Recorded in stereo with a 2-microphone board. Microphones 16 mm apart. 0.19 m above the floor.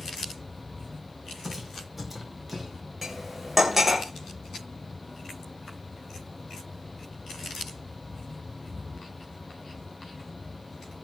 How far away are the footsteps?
About 5.5 m.